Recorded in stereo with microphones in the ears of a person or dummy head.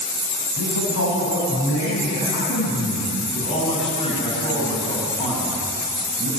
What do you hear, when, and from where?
0.6 s a man speaking: 75° left (ahead or behind), 8.5 m
3.3 s a man speaking: 30° left (ahead or behind), 8.5 m